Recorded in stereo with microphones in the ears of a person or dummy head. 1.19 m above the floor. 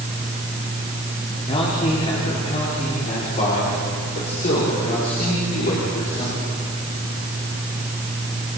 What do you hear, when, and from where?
1.5 s a man speaking: 35° left (ahead or behind), 3.5 m; by 6.5 s 50° left (ahead or behind), 6 m